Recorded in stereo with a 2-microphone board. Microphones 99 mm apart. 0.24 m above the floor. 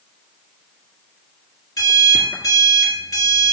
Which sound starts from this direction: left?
An alarm clock, at 1.8 s.